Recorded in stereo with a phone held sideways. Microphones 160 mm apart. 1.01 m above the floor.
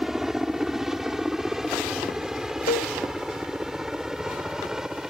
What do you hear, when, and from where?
0.0 s a helicopter: centre (ahead or behind); by 5.1 s 5° right (ahead or behind)
2.7 s a cowbell: 70° left (ahead or behind)